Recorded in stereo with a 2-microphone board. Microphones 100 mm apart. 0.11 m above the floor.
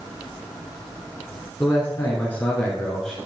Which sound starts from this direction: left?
A man speaking, at 1.6 s.